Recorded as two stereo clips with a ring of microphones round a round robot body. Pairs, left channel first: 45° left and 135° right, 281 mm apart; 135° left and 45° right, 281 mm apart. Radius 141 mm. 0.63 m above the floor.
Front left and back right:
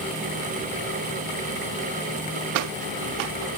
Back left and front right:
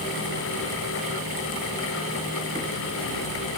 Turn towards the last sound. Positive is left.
No sound to turn to.